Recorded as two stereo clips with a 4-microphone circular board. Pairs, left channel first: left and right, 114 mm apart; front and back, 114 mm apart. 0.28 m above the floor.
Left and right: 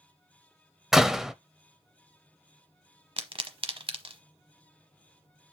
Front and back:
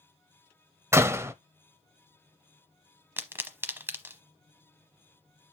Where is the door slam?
170° right, 0.6 m.